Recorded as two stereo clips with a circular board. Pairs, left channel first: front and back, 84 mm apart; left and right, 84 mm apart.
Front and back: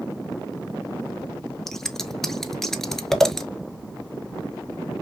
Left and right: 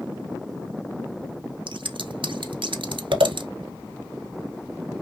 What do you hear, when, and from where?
1.7 s scissors: 85° right, 0.6 m